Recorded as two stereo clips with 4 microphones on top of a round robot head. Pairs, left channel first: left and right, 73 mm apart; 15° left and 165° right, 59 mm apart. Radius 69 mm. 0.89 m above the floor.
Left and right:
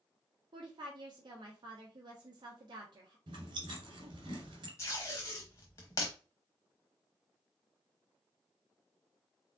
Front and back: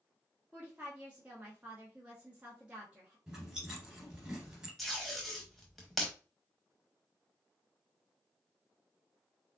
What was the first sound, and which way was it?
A woman speaking, 95° right.